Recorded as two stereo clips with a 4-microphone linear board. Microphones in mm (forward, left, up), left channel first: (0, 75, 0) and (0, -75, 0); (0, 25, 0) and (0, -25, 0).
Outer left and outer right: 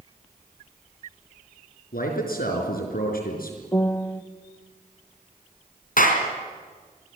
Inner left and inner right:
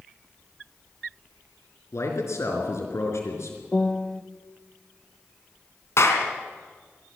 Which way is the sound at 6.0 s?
65° left (ahead or behind).